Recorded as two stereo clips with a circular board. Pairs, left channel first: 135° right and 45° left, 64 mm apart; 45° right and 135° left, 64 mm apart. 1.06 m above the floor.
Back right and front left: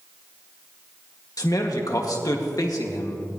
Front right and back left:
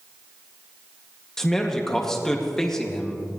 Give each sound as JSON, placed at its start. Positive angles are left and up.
{"t": 1.4, "sound": "a man speaking", "azimuth_deg": -125, "distance_m": 1.9}